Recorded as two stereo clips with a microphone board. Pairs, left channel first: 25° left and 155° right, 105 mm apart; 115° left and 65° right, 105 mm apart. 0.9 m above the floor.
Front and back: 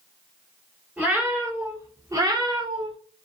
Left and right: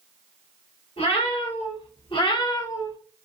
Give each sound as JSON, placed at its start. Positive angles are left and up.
{"t": 1.0, "sound": "a cat meowing", "azimuth_deg": 130, "distance_m": 1.5}